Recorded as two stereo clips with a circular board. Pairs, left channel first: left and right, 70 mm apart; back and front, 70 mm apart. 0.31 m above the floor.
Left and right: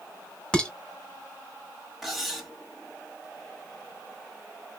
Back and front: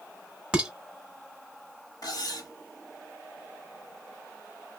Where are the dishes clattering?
45° left, 0.8 m.